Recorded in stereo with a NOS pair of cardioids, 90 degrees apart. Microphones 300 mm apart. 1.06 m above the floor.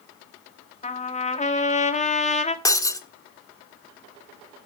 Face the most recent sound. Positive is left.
turn(degrees=10)